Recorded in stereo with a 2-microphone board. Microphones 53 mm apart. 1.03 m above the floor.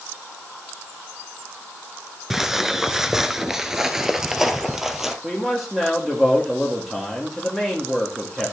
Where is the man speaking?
Centre (ahead or behind), 1.7 m.